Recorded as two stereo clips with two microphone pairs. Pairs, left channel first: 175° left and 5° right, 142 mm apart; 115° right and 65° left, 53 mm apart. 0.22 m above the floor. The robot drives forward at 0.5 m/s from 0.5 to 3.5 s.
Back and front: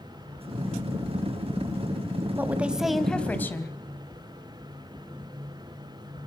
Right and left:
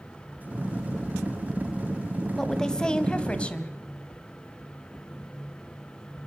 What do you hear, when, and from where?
2.4 s a woman speaking: 55° right, 1.2 m; by 3.7 s 135° right, 1.2 m